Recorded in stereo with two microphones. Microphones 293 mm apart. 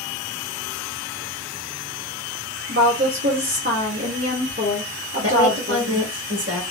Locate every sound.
2.7 s a woman speaking: 45° right (ahead or behind), 1.8 m
5.2 s a woman speaking: 50° right (ahead or behind), 1.8 m